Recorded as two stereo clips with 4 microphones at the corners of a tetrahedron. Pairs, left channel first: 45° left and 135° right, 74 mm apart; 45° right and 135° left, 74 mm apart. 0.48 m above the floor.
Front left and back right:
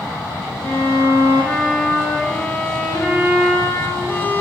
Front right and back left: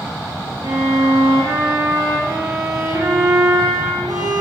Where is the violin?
115° left, 4 m.